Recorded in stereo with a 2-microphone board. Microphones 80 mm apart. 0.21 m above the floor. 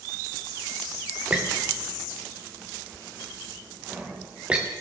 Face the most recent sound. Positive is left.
turn(degrees=-15)  # may be behind; listen again after turning